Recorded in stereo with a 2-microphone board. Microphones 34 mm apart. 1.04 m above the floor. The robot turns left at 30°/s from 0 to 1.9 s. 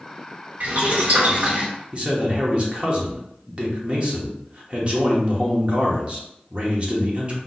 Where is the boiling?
110° right, 1.5 m; by 1.7 s 140° right, 1.5 m.